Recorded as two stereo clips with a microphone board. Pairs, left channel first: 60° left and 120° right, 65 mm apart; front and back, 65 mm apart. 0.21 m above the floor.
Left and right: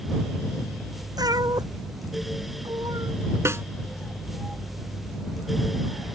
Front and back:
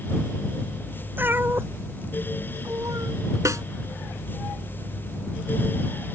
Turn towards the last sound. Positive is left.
turn(degrees=-160)